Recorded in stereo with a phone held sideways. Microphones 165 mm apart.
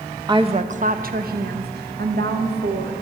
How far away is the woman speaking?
About 0.5 m.